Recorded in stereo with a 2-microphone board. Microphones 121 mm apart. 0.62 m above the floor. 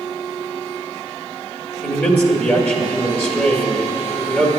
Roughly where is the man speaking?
Centre.